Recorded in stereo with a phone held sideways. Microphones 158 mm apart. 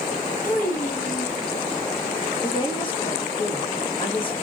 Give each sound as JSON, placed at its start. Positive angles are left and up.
{"t": 0.4, "sound": "a child speaking", "side_deg": 55, "distance_m": 1.3}
{"t": 2.4, "sound": "a woman speaking", "side_deg": 35, "distance_m": 1.3}